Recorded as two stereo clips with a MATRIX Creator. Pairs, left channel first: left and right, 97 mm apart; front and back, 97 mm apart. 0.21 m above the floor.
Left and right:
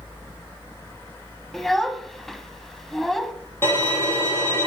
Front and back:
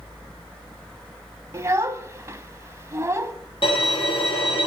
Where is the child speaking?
175° left, 0.6 m.